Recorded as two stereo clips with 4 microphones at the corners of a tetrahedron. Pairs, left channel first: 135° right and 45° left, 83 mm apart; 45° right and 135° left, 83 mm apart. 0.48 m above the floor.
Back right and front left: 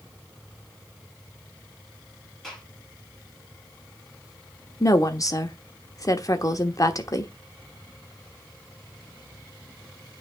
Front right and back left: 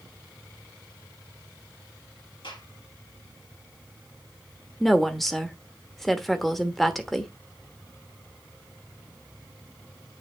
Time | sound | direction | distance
2.4 | a gunshot | 50° right | 6 m
4.8 | a woman speaking | 130° right | 1.1 m